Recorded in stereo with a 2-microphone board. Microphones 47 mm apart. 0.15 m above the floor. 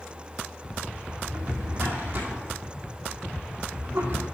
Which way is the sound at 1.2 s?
35° right (ahead or behind).